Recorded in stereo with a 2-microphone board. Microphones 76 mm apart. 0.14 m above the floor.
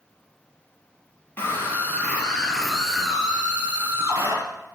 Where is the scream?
30° left (ahead or behind), 3.5 m; by 4.4 s 40° right (ahead or behind), 3 m.